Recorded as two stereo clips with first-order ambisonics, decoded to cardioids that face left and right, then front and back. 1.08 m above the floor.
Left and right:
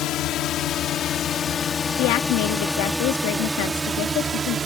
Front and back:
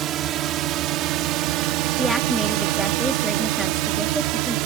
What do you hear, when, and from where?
0.0 s a drone: 130° left; by 4.7 s 160° right
2.0 s a woman speaking: 90° left